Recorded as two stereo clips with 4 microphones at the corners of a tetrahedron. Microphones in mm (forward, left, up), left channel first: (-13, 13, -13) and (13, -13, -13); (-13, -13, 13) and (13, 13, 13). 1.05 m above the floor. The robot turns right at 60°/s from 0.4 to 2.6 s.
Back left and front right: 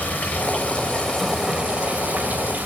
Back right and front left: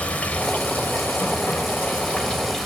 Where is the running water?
170° left, 2.5 m; by 2.7 s 60° right, 2.5 m.